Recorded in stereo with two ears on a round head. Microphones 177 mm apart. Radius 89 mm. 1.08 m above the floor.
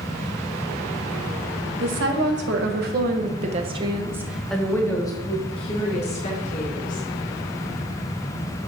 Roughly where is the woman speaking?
Right.